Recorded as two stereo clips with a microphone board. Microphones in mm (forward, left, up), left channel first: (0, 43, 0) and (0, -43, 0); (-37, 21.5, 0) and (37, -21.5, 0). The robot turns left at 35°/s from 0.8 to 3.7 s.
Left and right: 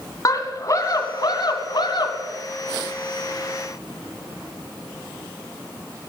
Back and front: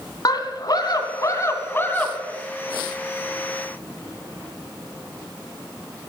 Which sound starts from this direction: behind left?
A scream, at 0.2 s.